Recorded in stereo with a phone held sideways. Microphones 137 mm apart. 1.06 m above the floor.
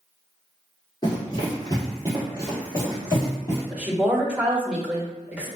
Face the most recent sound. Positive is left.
turn(degrees=-10)  # may be behind; listen again after turning